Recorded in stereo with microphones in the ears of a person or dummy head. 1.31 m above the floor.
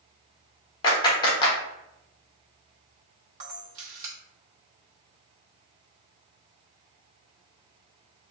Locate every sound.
0.8 s a clap: 25° left (ahead or behind), 1.0 m
3.4 s a camera shutter: 40° right (ahead or behind), 1.0 m